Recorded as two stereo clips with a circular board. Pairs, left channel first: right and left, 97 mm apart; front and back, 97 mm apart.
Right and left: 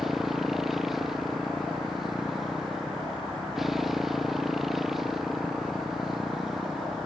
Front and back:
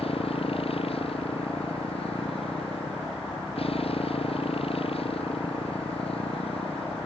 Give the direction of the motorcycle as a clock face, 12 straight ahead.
12 o'clock.